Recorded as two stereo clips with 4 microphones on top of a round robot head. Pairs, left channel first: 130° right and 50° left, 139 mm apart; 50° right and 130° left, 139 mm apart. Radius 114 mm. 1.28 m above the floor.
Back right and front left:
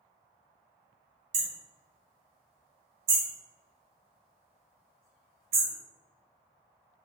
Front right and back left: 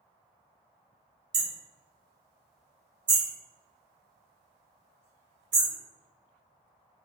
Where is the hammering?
70° left, 1.2 m.